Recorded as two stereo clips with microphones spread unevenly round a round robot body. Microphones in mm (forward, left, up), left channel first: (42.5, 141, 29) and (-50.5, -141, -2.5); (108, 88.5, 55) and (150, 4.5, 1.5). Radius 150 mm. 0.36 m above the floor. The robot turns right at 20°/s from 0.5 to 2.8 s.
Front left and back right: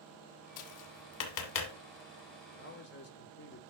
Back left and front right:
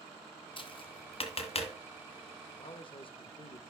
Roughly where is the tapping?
Left.